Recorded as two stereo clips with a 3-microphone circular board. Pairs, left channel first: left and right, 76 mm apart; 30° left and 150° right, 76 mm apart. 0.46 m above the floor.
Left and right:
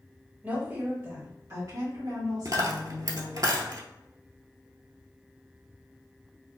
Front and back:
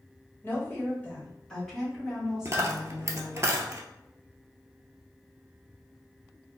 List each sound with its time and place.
0.4 s a woman speaking: 25° right, 1.8 m; by 3.5 s 80° right, 3 m
2.5 s a dropped coin: 110° right, 0.7 m